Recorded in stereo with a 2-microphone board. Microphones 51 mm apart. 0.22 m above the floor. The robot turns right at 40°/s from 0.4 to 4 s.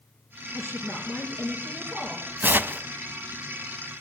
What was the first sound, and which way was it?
A woman speaking, 130° right.